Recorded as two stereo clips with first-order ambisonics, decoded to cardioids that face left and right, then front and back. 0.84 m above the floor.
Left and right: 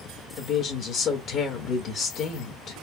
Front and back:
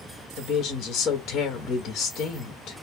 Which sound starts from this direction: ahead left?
A woman speaking, at 0.4 s.